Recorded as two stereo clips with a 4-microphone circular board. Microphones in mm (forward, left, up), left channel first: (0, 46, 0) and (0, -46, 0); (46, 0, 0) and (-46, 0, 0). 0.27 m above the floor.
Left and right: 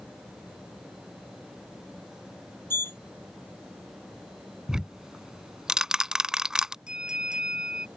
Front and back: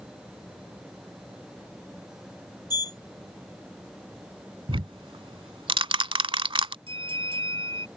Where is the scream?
I don't hear a scream.